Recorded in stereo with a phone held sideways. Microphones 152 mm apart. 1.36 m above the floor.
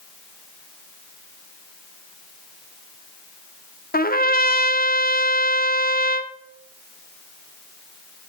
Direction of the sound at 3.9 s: 75° left (ahead or behind).